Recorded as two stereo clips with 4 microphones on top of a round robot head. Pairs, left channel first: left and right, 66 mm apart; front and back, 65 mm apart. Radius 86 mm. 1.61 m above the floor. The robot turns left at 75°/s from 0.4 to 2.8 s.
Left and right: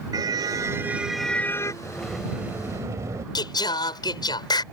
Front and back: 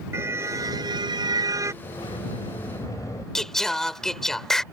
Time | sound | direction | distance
0.1 | a car horn | 125° right | ?
1.8 | a sliding door | 20° left | ?
3.4 | singing | 85° left | ?